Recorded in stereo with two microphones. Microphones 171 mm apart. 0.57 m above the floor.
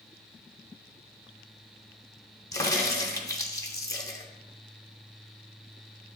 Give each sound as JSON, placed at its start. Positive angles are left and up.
{"t": 2.5, "sound": "a crack", "side_deg": 20, "distance_m": 0.9}